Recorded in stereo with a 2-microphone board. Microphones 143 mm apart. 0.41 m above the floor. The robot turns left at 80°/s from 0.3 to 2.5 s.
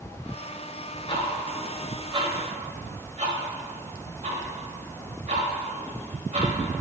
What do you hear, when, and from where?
1.1 s ticking: 40° left (ahead or behind), 1.4 m; by 6.5 s 55° right (ahead or behind), 1.4 m